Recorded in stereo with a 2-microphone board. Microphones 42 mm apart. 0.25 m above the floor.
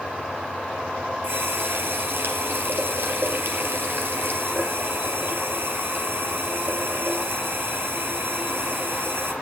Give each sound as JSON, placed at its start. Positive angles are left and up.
{"t": 1.2, "sound": "a running tap", "side_deg": -65, "distance_m": 3.5}